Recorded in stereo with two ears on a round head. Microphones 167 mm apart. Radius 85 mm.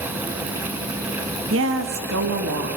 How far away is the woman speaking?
About 1.6 m.